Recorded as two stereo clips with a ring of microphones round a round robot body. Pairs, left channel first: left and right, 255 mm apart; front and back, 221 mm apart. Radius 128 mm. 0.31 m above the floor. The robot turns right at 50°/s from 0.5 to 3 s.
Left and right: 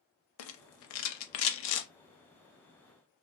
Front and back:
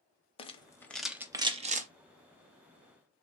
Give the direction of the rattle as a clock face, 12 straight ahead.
10 o'clock.